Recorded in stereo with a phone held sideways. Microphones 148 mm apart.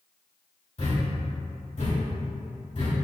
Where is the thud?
50° left (ahead or behind), 1.7 m.